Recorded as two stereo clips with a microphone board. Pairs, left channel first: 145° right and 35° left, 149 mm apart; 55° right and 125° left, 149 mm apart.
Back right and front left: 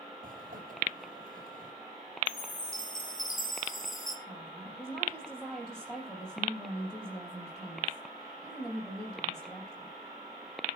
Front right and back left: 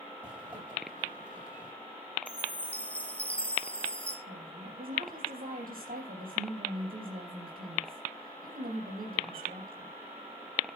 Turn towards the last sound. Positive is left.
turn(degrees=130)